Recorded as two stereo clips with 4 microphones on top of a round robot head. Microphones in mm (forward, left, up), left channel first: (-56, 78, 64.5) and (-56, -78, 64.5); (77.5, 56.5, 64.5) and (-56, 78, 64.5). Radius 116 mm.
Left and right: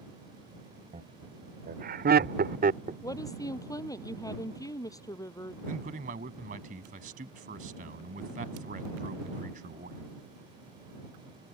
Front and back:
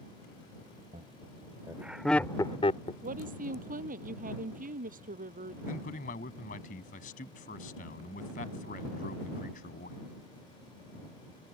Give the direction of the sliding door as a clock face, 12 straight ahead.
I don't hear a sliding door.